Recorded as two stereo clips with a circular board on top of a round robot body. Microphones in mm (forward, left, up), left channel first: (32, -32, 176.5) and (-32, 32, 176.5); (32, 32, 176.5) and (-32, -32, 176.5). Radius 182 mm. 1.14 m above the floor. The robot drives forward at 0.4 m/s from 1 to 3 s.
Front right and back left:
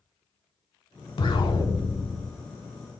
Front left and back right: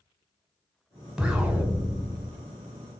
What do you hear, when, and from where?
1.2 s an explosion: 50° right, 1.2 m; by 2.4 s 75° right, 1.0 m